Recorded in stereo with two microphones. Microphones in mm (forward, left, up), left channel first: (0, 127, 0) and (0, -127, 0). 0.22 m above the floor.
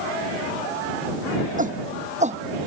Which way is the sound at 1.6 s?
30° right (ahead or behind).